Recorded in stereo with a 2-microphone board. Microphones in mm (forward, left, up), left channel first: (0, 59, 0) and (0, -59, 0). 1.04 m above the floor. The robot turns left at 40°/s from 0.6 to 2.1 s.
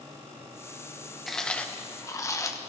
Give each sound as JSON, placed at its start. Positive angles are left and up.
{"t": 1.3, "sound": "chewing", "azimuth_deg": 175, "distance_m": 0.8}